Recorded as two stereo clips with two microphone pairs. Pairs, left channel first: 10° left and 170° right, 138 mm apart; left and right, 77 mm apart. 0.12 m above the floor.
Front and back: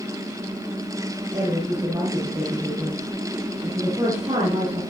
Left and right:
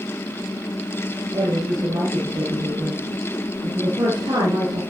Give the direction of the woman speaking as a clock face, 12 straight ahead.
4 o'clock.